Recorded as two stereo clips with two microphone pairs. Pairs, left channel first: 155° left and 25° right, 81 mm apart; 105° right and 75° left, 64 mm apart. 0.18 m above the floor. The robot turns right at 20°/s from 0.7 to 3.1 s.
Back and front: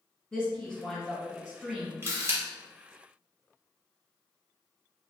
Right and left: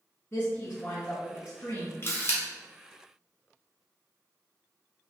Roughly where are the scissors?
No scissors in this recording.